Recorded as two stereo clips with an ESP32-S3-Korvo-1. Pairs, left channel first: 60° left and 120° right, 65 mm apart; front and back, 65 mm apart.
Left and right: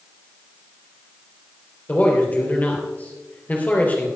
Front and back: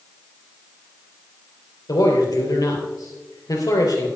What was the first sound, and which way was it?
A man speaking, straight ahead.